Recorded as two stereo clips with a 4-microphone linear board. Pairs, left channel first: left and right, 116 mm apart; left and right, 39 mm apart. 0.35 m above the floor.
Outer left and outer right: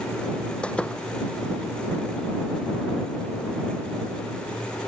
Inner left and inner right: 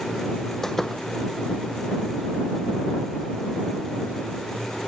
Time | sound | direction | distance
0.6 | a door slam | 10° left (ahead or behind) | ?